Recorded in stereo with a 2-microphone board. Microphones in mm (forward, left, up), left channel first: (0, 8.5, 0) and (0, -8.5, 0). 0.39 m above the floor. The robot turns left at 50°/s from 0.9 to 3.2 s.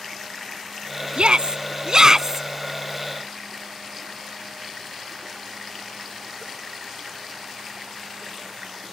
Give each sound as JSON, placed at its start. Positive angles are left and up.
{"t": 1.2, "sound": "a shout", "azimuth_deg": -100}